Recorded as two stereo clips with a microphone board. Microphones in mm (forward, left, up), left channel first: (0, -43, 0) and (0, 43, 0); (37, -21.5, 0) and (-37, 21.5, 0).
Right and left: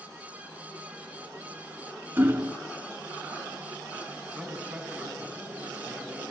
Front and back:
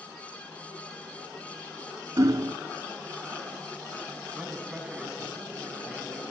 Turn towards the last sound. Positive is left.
turn(degrees=110)